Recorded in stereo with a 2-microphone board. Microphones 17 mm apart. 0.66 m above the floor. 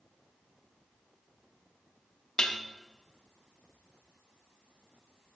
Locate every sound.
2.4 s dishes clattering: 55° left (ahead or behind), 0.6 m